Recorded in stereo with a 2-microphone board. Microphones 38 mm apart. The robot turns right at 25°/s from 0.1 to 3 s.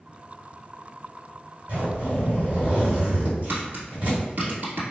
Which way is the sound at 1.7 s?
95° right.